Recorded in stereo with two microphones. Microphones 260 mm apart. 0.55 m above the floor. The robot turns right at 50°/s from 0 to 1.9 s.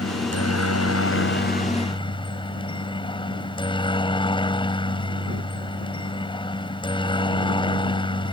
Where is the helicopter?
65° left; by 8.3 s 160° left.